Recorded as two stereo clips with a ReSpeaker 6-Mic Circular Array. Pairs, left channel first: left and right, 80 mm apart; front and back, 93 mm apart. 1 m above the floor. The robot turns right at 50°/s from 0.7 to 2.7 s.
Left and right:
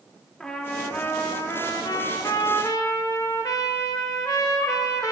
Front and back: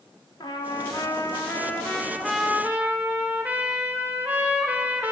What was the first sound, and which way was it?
A trumpet, 15° left.